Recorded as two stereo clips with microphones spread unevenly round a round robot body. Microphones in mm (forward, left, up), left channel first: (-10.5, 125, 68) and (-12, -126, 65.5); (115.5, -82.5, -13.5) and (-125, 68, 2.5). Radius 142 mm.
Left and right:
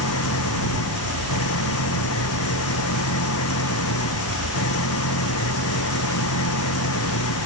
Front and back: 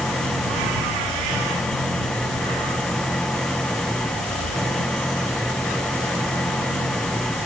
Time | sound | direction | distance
0.0 | an engine running | 55° left | ?